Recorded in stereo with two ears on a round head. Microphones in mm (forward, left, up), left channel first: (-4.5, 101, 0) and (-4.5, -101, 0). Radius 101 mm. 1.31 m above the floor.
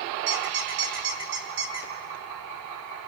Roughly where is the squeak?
Right.